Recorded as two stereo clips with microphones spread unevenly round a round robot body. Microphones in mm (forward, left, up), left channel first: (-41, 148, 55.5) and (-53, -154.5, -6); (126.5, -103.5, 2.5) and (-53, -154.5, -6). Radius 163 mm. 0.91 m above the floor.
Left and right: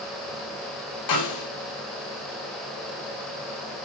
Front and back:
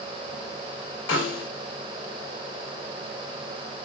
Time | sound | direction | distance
1.1 | a snare drum | 50° left | 3 m